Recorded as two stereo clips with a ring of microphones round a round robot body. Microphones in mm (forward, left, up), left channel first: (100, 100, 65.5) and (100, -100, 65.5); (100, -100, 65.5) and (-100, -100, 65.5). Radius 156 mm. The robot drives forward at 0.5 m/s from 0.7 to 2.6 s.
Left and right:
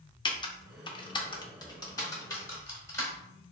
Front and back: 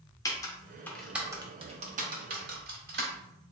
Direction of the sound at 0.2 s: 50° left.